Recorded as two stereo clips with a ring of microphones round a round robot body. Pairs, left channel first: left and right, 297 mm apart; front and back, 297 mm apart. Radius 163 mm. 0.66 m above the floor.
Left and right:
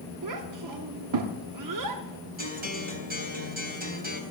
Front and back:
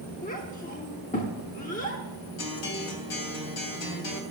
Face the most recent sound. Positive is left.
turn(degrees=-30)